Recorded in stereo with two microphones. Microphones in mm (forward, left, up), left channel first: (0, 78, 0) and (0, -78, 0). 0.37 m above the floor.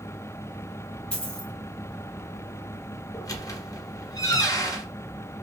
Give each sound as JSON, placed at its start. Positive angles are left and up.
{"t": 1.1, "sound": "a dropped coin", "side_deg": 5, "distance_m": 1.4}
{"t": 3.1, "sound": "a squeak", "side_deg": 20, "distance_m": 0.7}